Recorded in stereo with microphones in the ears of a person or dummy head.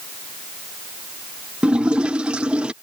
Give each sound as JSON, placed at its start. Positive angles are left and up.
{"t": 1.6, "sound": "a splash", "side_deg": -10}